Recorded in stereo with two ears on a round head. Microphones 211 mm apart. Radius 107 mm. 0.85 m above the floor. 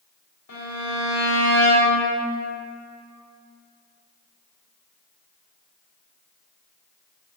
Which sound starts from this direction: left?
A violin, at 0.5 s.